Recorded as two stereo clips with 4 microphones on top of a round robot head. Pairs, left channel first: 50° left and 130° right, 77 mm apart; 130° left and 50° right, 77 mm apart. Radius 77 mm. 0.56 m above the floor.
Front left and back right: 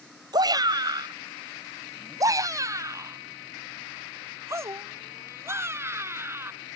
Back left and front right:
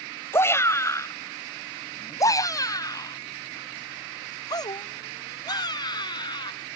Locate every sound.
0.3 s a shout: 170° right; by 6.5 s 165° left